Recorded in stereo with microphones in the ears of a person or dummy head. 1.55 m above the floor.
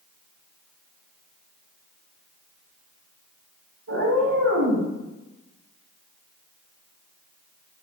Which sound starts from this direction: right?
A cat meowing, at 3.9 s.